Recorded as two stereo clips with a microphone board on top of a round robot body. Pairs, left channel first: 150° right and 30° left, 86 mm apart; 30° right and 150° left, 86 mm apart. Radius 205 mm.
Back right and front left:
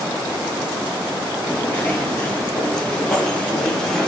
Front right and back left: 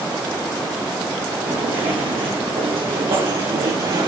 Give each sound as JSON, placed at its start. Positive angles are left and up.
{"t": 1.5, "sound": "footsteps", "azimuth_deg": 145, "distance_m": 1.6}